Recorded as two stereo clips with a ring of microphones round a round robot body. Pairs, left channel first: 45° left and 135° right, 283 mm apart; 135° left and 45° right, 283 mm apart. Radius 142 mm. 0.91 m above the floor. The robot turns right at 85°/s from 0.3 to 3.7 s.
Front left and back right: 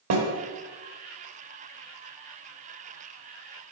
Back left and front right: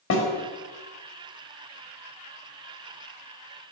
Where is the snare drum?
175° right, 1.5 m.